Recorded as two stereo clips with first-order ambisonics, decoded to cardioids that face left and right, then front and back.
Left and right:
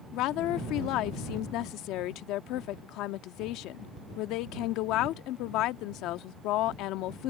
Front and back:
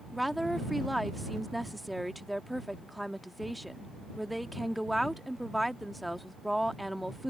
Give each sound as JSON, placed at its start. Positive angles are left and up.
{"t": 0.1, "sound": "a woman speaking", "azimuth_deg": 90}